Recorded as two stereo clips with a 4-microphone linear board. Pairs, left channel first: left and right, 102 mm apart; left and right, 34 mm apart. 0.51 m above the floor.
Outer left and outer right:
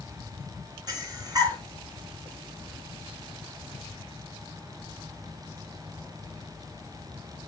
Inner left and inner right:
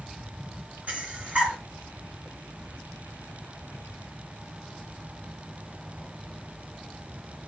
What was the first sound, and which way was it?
Breathing, 40° right (ahead or behind).